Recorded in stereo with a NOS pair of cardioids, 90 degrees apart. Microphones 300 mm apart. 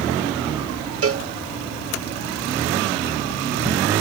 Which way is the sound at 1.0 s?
50° right.